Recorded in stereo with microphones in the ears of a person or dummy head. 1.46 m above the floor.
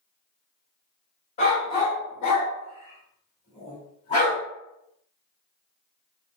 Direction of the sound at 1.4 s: 30° left (ahead or behind).